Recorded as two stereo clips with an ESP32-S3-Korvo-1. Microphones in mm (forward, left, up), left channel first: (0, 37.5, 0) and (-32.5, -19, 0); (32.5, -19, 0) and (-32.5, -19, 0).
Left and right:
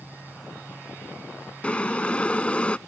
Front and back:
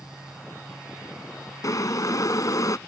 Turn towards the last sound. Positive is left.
turn(degrees=-10)